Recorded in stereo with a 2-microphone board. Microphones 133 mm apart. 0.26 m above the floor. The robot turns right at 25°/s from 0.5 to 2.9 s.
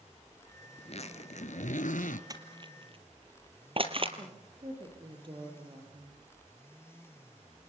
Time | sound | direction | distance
0.8 | a zipper | 50° left | 1.4 m
2.3 | crushing | 30° right (ahead or behind) | 2 m
4.2 | a woman speaking | 40° right (ahead or behind) | 6.5 m